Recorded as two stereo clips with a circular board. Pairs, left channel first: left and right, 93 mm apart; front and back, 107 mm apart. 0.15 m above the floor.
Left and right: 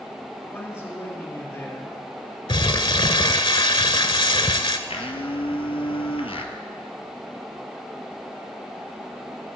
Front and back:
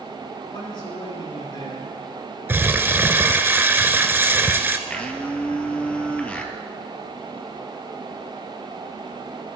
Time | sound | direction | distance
0.5 | a man speaking | 35° left | 2.5 m
2.5 | crumpling | 110° left | 0.6 m
4.9 | a blender | 80° left | 0.9 m